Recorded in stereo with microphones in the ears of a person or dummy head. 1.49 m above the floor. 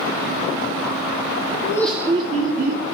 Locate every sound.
1.6 s laughter: 25° left (ahead or behind), 0.6 m; by 2.8 s 65° right (ahead or behind), 0.9 m